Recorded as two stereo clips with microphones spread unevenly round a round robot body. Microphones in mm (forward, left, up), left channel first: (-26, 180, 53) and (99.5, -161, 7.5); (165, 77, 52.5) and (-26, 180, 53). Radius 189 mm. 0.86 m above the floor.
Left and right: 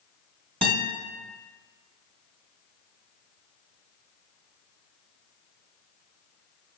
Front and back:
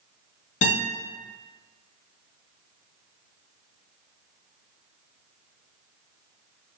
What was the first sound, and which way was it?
A guitar, 5° left.